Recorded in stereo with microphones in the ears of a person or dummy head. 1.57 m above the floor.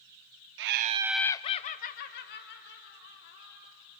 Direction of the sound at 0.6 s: 55° right (ahead or behind).